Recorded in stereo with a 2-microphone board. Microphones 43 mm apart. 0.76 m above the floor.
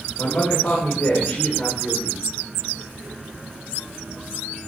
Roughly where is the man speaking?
Left.